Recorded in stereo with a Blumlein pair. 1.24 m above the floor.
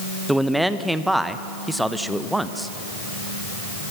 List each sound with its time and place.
0.3 s a man speaking: straight ahead, 1.1 m